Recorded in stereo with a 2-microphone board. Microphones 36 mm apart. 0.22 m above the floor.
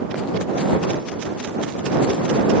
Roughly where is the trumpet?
No trumpet in this recording.